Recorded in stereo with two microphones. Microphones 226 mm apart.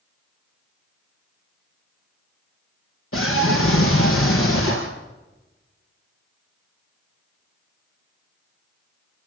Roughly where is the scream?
Left.